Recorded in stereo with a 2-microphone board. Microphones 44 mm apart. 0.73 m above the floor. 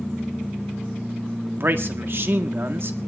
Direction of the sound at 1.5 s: 55° right (ahead or behind).